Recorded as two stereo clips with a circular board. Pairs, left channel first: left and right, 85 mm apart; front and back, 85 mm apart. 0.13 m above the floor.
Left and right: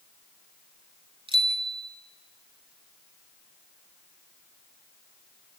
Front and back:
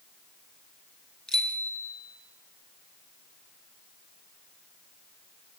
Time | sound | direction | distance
1.3 | a bicycle bell | 80° right | 3 m